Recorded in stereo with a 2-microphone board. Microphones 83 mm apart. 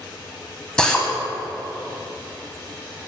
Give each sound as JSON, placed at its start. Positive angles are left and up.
{"t": 0.8, "sound": "a drill", "side_deg": 10, "distance_m": 0.9}